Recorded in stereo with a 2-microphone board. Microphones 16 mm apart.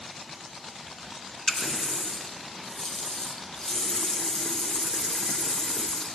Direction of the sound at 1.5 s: 40° left (ahead or behind).